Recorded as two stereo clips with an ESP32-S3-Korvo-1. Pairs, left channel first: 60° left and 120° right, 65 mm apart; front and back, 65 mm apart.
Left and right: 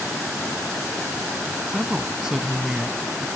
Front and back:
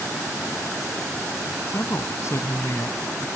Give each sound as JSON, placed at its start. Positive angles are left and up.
{"t": 1.7, "sound": "a woman speaking", "azimuth_deg": -40}